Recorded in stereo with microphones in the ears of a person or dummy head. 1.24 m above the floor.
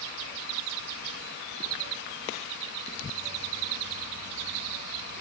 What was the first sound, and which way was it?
Only background noise.